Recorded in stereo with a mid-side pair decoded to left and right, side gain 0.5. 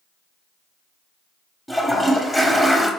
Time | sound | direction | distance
1.7 | a toilet flushing | 10° left | 0.7 m